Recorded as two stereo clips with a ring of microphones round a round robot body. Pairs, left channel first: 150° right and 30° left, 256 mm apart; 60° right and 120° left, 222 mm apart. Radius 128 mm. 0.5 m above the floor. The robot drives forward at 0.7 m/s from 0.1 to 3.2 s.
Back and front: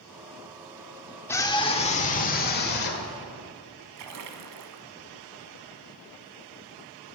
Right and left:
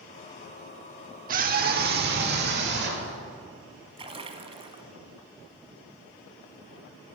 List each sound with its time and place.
1.3 s a scream: 135° left, 1.1 m; by 3.1 s 165° left, 2.0 m
4.0 s a splash: 55° left, 1.1 m